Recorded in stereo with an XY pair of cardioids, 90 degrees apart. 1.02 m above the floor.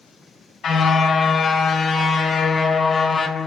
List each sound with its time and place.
0.6 s a car horn: 65° left, 4 m; by 3.5 s 35° left, 2 m